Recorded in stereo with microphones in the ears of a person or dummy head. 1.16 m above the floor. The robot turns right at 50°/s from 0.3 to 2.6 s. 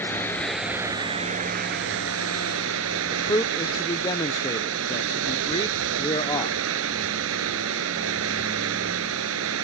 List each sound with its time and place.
0.0 s running water: 165° left; by 9.6 s 80° right
3.1 s a man speaking: 20° left (ahead or behind)